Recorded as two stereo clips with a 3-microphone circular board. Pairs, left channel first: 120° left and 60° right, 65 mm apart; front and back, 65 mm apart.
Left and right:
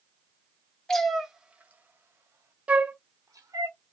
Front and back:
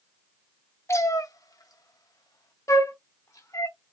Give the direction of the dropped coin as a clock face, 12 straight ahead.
I don't hear a dropped coin.